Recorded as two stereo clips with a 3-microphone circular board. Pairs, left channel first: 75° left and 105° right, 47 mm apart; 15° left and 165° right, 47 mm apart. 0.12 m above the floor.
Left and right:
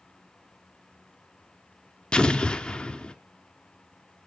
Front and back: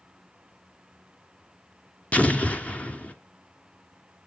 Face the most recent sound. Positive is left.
turn(degrees=30)